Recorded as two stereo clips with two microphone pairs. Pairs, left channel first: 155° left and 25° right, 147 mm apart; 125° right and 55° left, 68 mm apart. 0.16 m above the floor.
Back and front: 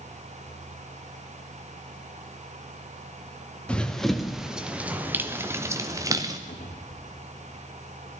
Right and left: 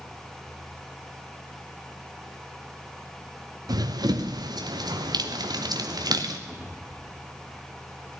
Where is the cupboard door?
125° left, 5.5 m.